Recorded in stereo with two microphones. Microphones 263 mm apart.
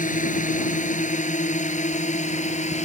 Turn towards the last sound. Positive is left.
turn(degrees=25)  # may be behind; listen again after turning